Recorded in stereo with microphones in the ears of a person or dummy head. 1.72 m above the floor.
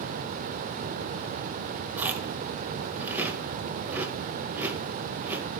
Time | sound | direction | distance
2.0 | chewing | 5° right (ahead or behind) | 0.7 m